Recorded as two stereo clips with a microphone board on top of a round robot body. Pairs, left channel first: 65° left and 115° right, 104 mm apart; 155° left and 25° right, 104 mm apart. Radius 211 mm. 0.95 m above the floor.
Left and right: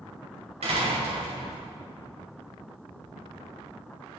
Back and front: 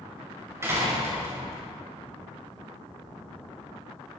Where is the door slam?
90° right, 5 m.